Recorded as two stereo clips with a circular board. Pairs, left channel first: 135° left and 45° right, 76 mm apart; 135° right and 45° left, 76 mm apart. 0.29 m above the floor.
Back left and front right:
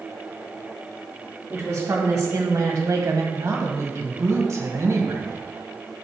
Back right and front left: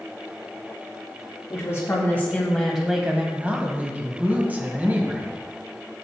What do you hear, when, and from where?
1.5 s a woman speaking: 100° right, 1.7 m; by 3.2 s 15° right, 1.4 m
3.3 s a woman speaking: 15° right, 1.5 m